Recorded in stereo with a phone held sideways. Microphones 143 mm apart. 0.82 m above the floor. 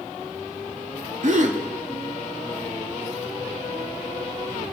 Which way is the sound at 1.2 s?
60° right (ahead or behind).